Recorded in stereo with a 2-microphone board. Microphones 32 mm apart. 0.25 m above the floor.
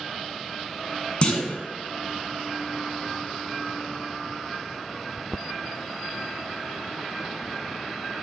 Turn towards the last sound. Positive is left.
turn(degrees=40)  # may be behind; listen again after turning